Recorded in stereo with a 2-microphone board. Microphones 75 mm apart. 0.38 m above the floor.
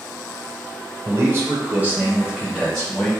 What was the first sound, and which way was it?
A man speaking, 35° right (ahead or behind).